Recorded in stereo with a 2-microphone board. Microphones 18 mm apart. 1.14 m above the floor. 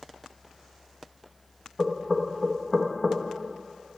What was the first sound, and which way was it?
Knocking, 5° left (ahead or behind).